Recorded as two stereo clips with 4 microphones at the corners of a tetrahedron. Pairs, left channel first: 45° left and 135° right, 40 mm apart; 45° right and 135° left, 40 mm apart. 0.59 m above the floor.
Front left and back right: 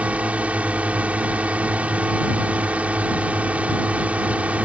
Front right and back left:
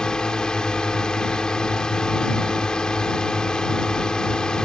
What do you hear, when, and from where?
0.0 s a drone: 105° right